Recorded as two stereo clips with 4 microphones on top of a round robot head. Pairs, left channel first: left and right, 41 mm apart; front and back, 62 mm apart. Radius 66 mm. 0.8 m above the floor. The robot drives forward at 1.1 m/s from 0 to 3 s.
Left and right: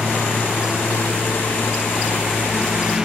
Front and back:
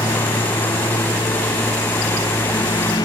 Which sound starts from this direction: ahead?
A lawn mower, at 0.0 s.